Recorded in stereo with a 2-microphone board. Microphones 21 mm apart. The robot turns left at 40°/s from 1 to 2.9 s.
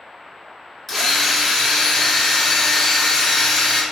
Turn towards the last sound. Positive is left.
turn(degrees=80)